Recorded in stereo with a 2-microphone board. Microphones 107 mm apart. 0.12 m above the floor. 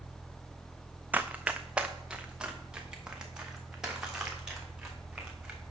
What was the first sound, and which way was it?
Running footsteps, 15° right (ahead or behind).